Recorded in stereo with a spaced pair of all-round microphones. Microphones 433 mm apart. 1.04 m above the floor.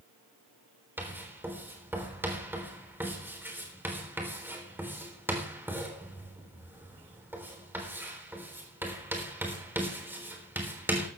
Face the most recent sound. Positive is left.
turn(degrees=-5)  # may be behind; listen again after turning